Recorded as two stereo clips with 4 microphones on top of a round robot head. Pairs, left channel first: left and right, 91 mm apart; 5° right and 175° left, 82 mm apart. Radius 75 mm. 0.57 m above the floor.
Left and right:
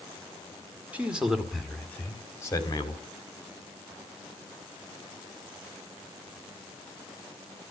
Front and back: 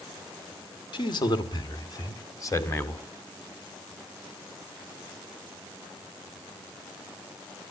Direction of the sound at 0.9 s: 15° right.